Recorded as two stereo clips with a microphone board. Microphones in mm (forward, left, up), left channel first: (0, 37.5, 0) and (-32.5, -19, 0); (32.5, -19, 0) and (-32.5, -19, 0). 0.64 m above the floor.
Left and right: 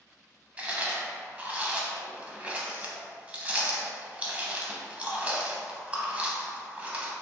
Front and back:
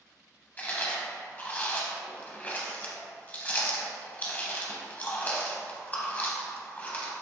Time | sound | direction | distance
0.6 | chewing | 55° right | 0.6 m